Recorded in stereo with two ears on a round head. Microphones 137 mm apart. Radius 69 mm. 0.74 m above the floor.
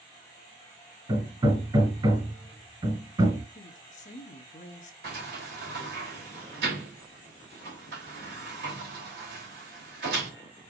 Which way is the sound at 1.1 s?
30° right (ahead or behind).